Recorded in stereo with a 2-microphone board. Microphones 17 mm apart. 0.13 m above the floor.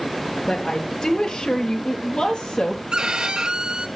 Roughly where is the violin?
Right.